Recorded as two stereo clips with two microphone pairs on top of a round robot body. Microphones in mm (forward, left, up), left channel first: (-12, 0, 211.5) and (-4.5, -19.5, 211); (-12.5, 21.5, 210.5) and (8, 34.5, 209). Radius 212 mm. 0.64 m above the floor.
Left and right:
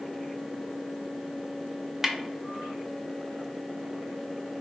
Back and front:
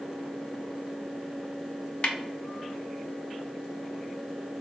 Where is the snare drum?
135° right, 0.9 m.